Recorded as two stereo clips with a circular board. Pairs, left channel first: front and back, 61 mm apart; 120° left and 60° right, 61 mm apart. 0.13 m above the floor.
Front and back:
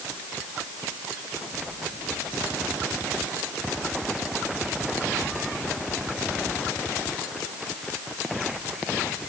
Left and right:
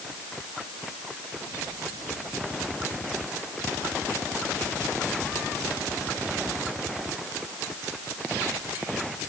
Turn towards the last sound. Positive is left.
No sound to turn to.